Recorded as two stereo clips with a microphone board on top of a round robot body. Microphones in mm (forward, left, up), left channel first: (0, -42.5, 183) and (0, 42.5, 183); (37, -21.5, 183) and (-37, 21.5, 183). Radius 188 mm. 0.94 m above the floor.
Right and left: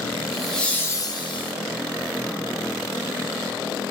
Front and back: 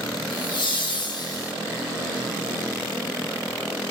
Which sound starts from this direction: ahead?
Laughter, at 0.3 s.